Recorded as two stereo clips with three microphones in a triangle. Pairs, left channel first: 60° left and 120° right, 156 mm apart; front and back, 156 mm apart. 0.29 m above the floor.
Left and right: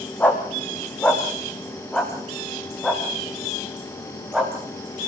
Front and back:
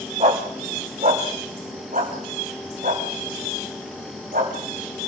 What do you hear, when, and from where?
0.2 s a dog barking: 140° left, 4 m; by 5.1 s 155° left, 6 m